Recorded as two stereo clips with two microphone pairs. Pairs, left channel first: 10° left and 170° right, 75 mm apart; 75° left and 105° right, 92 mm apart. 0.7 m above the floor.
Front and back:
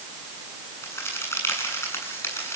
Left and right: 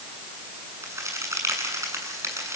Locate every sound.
0.8 s a crack: 45° right, 8 m